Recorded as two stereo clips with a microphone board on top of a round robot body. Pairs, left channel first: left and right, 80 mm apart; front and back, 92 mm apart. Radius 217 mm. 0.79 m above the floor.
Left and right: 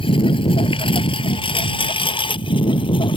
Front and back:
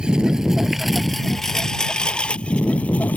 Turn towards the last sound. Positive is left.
turn(degrees=75)